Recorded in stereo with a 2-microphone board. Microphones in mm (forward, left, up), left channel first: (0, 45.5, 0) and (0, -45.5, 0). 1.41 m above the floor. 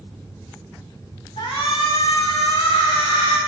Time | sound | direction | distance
1.4 | a shout | 70° left (ahead or behind) | 5 m